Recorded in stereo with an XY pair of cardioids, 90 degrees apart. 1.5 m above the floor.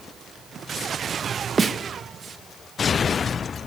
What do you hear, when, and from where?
1.6 s a snare drum: 40° right, 1.6 m